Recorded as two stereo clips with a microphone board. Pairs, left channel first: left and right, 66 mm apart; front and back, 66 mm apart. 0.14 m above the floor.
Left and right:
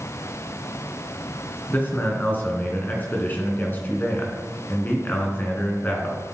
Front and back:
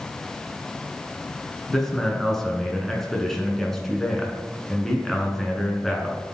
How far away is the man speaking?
About 1.6 m.